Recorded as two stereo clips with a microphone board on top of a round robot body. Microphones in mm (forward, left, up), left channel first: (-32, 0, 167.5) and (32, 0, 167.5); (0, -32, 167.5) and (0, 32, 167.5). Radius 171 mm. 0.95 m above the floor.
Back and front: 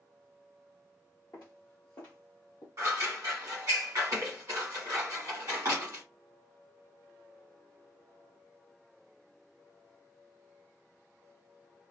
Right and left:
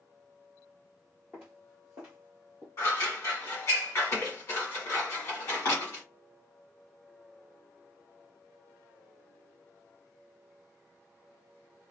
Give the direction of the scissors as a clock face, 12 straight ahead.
1 o'clock.